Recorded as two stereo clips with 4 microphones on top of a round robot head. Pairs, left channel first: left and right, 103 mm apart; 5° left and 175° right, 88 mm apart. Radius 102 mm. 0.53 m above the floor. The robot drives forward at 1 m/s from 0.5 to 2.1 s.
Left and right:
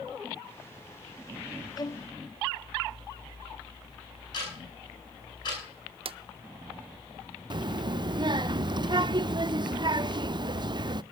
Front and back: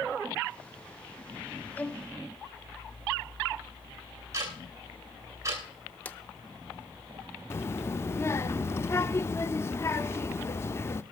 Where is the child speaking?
50° right, 0.7 m.